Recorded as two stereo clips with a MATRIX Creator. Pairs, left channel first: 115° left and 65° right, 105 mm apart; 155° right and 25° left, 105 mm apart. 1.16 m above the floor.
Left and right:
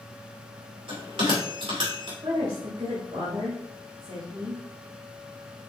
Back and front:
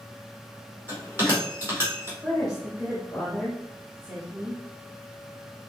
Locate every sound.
0.9 s a bell: 45° right, 2.5 m
2.2 s a woman speaking: 60° right, 1.5 m